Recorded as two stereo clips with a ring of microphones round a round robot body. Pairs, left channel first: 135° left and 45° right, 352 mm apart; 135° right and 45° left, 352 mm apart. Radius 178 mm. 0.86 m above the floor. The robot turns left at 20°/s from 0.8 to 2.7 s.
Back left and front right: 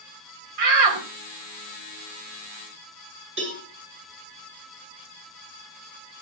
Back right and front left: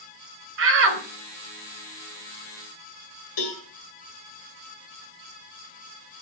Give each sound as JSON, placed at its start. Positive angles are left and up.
{"t": 0.6, "sound": "a shout", "azimuth_deg": -10, "distance_m": 4.5}
{"t": 3.4, "sound": "a cowbell", "azimuth_deg": -105, "distance_m": 8.0}